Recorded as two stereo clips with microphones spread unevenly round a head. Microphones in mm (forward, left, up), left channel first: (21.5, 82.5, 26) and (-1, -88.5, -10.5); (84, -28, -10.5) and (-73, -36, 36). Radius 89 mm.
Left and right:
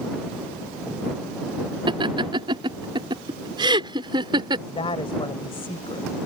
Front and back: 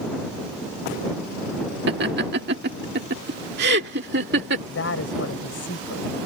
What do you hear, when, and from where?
1.9 s laughter: 165° right
4.7 s a woman speaking: 25° left